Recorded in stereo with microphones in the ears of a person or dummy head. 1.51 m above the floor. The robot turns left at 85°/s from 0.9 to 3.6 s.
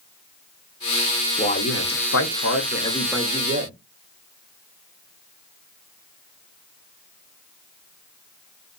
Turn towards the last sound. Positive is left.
turn(degrees=-40)